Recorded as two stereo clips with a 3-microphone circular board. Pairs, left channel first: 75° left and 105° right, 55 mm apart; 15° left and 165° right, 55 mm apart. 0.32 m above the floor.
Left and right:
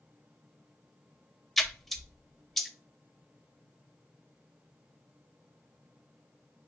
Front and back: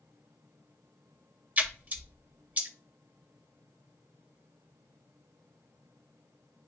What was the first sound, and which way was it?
A splash, 160° left.